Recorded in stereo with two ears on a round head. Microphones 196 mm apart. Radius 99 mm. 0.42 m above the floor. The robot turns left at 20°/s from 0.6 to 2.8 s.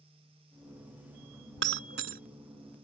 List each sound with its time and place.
1.6 s breaking glass: 60° right (ahead or behind); by 2.2 s 50° right (ahead or behind)